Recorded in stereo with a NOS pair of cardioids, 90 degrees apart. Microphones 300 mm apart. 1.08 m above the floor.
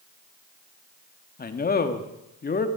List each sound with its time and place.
1.4 s a man speaking: 30° left, 1.9 m